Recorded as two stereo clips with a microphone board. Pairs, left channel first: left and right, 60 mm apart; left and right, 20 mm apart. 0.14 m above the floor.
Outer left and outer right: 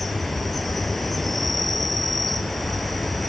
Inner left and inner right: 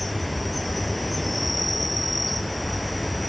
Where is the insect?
5° left (ahead or behind), 0.8 m.